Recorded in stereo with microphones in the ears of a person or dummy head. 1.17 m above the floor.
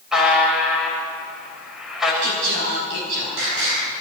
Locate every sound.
0.1 s a buzzer: centre (ahead or behind), 6 m
2.2 s singing: 75° right (ahead or behind), 10 m